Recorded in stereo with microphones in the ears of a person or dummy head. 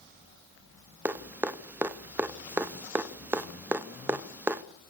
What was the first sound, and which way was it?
Dripping, 5° right (ahead or behind).